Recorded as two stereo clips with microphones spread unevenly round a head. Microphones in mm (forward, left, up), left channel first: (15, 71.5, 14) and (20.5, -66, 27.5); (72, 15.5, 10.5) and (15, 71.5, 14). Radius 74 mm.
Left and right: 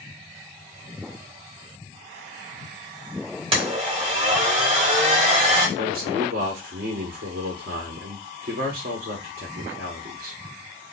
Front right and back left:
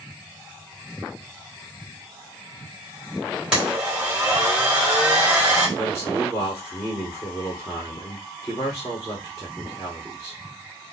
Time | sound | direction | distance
3.5 | a blender | 140° right | 1.4 m
5.8 | a man speaking | 115° right | 1.4 m